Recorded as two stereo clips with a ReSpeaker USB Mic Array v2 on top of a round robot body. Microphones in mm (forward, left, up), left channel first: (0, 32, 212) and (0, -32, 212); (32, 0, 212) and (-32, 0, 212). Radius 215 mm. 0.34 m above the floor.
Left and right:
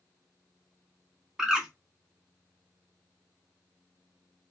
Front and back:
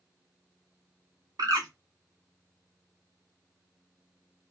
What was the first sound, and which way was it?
A bird, 170° right.